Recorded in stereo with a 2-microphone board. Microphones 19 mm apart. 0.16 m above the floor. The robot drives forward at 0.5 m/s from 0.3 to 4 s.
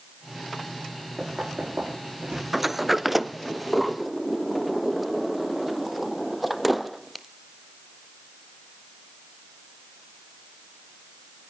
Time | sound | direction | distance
1.2 | knocking | 75° right (ahead or behind) | 8 m
2.5 | a sliding door | 15° right (ahead or behind) | 0.5 m